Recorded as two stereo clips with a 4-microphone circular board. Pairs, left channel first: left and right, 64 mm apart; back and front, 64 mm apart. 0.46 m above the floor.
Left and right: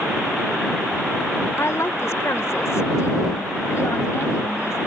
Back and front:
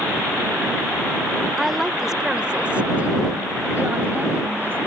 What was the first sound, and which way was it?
A woman speaking, 90° left.